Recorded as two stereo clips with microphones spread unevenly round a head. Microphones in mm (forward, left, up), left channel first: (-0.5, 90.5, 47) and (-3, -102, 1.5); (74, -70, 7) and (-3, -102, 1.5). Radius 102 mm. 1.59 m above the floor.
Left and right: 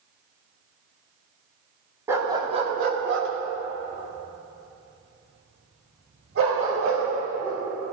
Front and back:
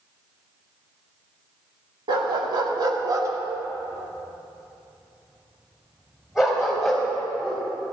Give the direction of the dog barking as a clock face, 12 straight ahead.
6 o'clock.